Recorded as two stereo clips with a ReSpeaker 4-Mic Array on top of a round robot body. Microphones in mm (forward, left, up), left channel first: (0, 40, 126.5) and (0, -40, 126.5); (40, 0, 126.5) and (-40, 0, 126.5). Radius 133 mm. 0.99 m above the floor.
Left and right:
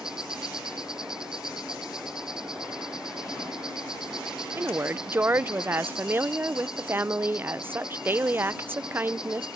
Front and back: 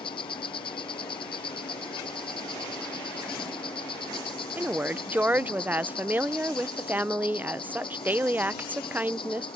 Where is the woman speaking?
130° right.